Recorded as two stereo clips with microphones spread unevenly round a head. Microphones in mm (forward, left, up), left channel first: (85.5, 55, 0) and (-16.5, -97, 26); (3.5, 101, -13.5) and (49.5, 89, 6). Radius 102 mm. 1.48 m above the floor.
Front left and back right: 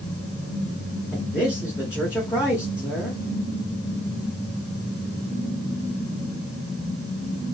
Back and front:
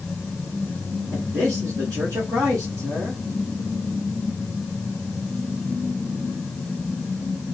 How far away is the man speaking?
About 1.2 m.